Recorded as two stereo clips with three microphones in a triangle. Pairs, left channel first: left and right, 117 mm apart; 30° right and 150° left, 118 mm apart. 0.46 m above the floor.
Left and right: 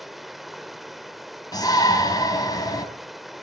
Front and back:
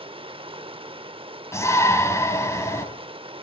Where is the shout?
35° left, 3.5 m.